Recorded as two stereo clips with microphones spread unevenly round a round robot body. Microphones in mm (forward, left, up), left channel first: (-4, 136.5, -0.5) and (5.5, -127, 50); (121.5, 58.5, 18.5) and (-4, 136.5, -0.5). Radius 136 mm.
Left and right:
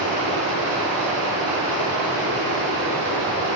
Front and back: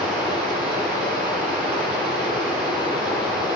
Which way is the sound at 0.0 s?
130° right.